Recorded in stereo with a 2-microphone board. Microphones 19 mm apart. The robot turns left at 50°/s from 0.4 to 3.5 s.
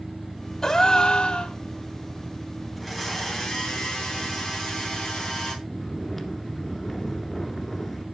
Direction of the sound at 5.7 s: 20° left (ahead or behind).